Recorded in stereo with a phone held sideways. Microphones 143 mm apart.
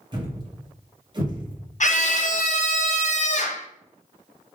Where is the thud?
30° right (ahead or behind), 0.8 m.